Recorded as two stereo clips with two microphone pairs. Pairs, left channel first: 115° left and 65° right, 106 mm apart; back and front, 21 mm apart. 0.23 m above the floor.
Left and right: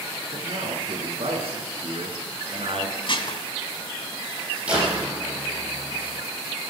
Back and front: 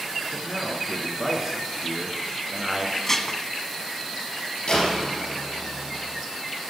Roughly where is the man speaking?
Right.